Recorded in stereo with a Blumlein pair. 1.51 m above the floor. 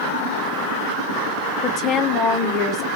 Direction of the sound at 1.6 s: 35° left.